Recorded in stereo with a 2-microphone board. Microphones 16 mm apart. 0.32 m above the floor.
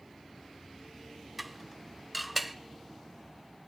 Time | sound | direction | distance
1.4 | dishes clattering | centre (ahead or behind) | 0.6 m